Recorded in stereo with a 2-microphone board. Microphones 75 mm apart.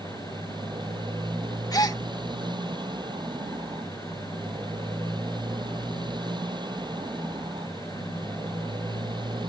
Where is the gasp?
55° left (ahead or behind).